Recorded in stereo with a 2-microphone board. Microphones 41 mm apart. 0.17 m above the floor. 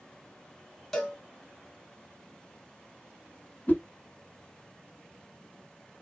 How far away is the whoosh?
About 0.8 m.